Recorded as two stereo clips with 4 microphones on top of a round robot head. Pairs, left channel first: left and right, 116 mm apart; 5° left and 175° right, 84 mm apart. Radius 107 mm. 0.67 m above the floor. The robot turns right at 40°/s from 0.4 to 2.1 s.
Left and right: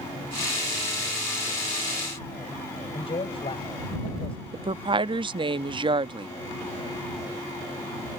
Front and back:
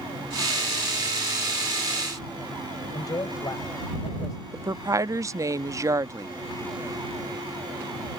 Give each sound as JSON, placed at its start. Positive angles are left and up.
{"t": 2.9, "sound": "a man speaking", "azimuth_deg": 50}
{"t": 4.5, "sound": "a woman speaking", "azimuth_deg": -130}